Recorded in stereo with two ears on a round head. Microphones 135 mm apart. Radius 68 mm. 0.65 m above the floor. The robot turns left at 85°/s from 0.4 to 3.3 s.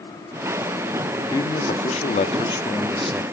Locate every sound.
1.3 s a man speaking: 150° left, 1.3 m; by 3.2 s 15° right, 1.3 m